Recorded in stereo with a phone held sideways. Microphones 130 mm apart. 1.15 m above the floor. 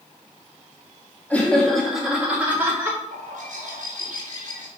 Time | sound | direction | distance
1.3 | laughter | 10° left (ahead or behind) | 2.5 m
3.1 | a bird | 70° right (ahead or behind) | 2.5 m